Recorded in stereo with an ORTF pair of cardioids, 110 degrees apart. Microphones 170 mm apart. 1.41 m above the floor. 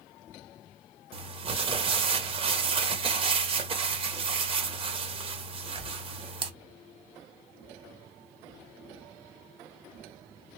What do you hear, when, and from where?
1.1 s crumpling: 35° right, 0.8 m